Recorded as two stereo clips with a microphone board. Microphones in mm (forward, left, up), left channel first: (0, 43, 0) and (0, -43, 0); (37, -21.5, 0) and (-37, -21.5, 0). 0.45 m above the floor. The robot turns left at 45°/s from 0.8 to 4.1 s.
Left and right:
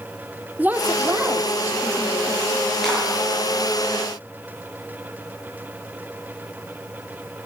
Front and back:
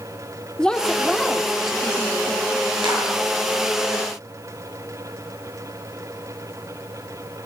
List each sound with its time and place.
0.6 s a woman speaking: 60° right, 0.8 m; by 2.7 s 145° right, 0.8 m
2.8 s a clap: straight behind, 6.5 m; by 3.0 s 170° left, 6.5 m